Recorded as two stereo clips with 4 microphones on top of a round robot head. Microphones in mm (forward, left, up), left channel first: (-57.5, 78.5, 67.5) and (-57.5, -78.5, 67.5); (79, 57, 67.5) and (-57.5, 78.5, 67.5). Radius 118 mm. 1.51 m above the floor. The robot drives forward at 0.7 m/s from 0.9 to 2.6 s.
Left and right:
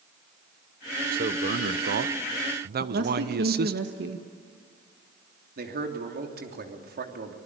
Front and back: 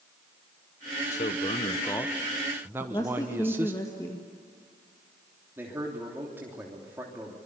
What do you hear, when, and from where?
1.1 s a man speaking: 50° right, 1.1 m; by 3.8 s 110° right, 1.0 m
2.8 s a woman speaking: 80° right, 1.6 m
5.6 s a man speaking: 110° right, 3 m